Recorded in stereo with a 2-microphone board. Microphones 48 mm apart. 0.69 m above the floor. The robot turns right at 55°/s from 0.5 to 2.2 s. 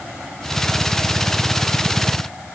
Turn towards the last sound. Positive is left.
No sound to turn to.